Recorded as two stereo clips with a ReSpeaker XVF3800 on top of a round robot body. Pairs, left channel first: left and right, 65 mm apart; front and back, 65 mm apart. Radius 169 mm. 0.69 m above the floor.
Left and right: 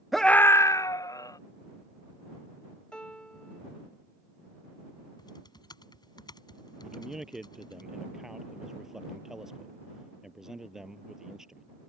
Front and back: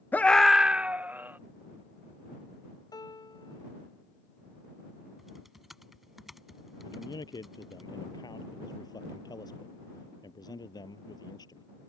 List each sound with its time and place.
0.1 s a scream: 5° right; by 1.4 s 120° left
2.9 s a piano: 15° left
5.2 s typing on a keyboard: 90° left
6.8 s a man speaking: 5° right